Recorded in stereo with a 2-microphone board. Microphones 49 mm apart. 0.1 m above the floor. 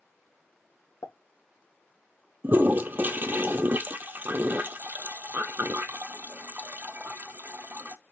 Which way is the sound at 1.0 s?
65° left (ahead or behind).